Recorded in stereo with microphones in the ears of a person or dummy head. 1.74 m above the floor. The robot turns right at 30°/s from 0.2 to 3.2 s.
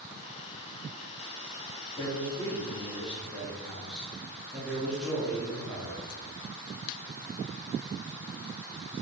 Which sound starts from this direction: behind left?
A man speaking, at 2.0 s.